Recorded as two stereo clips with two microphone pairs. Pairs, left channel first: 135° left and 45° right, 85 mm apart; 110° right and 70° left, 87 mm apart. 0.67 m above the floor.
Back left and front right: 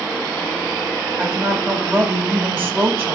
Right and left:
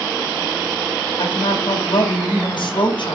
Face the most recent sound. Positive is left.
turn(degrees=-105)